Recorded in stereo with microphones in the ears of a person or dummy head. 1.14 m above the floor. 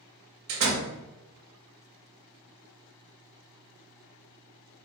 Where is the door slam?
60° right (ahead or behind), 1.4 m.